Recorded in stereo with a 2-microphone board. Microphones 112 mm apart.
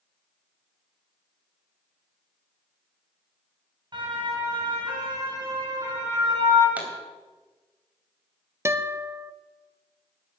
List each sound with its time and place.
3.9 s a siren: 45° right (ahead or behind), 4.5 m; by 6.7 s 40° right (ahead or behind), 6 m
6.8 s a pop: 15° right (ahead or behind), 3 m
8.7 s a guitar: 25° right (ahead or behind), 0.6 m